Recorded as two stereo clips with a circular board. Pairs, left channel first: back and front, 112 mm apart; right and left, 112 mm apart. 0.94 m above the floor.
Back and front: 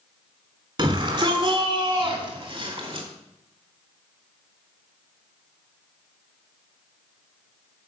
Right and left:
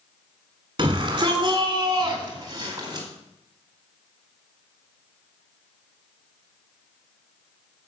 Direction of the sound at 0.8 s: 45° left.